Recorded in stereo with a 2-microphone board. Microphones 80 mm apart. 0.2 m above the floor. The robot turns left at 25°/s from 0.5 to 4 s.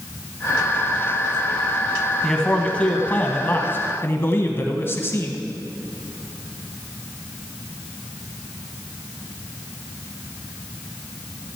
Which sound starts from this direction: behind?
A man speaking, at 2.2 s.